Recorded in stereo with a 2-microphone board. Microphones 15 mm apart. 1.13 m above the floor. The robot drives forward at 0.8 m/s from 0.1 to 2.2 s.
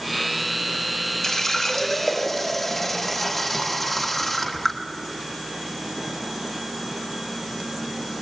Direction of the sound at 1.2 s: 35° left (ahead or behind).